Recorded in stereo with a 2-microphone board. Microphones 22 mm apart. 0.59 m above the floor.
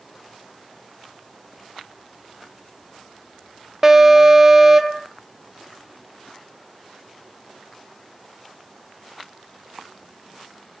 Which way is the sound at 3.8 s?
20° right (ahead or behind).